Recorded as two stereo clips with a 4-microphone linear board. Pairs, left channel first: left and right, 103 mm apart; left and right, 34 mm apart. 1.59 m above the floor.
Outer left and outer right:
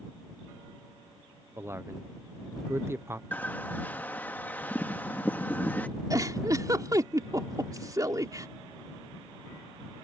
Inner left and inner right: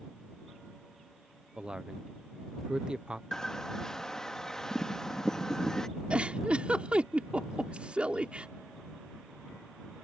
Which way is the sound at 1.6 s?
25° right (ahead or behind).